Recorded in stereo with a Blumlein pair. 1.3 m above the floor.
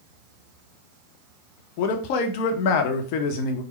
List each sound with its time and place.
1.8 s a man speaking: 45° left, 0.9 m